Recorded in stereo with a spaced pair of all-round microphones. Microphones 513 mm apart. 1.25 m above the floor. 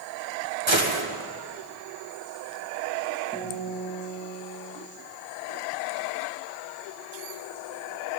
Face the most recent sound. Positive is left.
turn(degrees=5)  # may be behind; listen again after turning